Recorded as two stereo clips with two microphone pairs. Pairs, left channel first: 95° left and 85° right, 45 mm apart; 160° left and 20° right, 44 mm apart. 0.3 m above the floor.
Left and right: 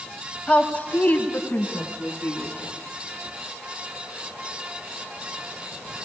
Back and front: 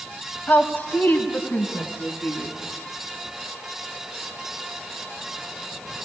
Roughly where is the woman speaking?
Behind left.